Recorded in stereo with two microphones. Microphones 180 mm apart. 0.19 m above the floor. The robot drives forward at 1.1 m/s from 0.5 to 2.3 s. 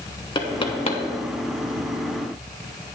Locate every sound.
0.3 s knocking: 25° left (ahead or behind), 1.1 m; by 1.0 s 35° left (ahead or behind), 0.8 m